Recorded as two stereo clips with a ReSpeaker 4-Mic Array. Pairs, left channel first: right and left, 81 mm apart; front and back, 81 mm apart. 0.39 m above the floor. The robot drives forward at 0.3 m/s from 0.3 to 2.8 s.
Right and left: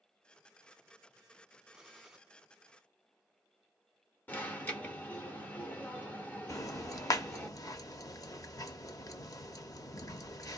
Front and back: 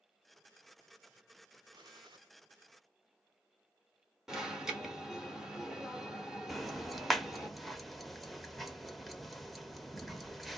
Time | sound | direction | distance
1.7 | a gunshot | 175° left | 1.2 m
4.3 | an alarm | 105° right | 1.1 m
6.5 | ticking | 90° right | 0.6 m